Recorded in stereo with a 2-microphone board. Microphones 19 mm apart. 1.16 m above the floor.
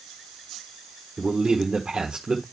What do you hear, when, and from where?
1.2 s a man speaking: 45° right (ahead or behind), 1.1 m